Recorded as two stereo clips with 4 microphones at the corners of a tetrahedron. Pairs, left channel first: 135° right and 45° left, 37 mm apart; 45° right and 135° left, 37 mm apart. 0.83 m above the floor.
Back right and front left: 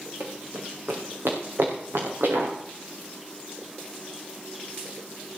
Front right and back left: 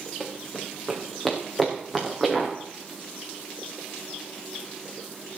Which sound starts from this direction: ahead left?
Running footsteps, at 0.2 s.